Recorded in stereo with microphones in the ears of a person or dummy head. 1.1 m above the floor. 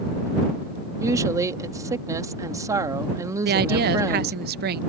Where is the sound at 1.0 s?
10° right (ahead or behind).